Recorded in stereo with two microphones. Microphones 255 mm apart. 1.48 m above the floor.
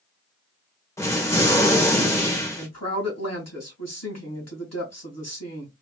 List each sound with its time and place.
1.0 s an explosion: 10° left (ahead or behind), 1.1 m
2.6 s a woman speaking: 75° left (ahead or behind), 2.0 m